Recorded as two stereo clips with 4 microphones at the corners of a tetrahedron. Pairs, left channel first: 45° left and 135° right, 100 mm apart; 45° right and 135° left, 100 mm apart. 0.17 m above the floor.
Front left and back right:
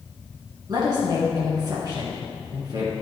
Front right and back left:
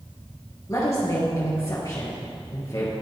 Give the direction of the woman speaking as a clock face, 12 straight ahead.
3 o'clock.